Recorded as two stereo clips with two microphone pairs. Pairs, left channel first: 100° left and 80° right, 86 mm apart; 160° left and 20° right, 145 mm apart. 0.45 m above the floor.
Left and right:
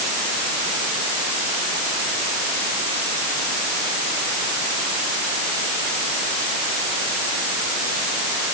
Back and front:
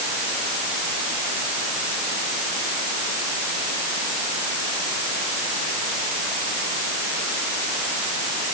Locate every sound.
Only background noise.